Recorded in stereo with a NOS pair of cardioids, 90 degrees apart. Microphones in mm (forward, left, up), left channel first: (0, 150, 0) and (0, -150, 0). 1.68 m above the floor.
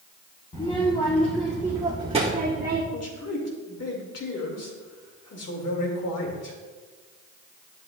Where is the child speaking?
20° left, 1.4 m; by 2.8 s 35° right, 1.4 m.